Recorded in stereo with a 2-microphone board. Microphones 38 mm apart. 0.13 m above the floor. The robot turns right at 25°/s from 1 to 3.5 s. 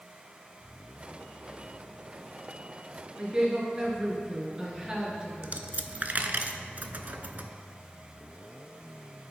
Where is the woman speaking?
25° right (ahead or behind), 2.5 m; by 5.5 s 20° right (ahead or behind), 2.5 m.